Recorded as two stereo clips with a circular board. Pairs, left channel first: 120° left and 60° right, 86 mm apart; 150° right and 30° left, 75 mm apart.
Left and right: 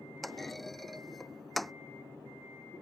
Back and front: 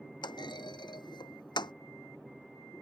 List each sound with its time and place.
0.2 s a clunk: 150° right